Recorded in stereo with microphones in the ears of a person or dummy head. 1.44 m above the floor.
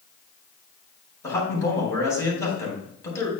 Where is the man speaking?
15° left (ahead or behind), 4 m.